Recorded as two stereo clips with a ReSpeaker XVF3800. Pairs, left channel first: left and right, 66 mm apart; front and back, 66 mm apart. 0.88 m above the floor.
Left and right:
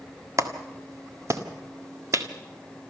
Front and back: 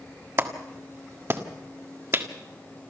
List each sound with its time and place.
0.4 s a clap: 130° right, 1.7 m